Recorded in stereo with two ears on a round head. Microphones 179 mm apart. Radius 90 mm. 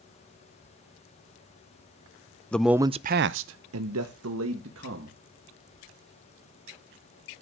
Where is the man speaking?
5° left (ahead or behind), 0.6 m; by 5.2 s 65° right (ahead or behind), 1.9 m.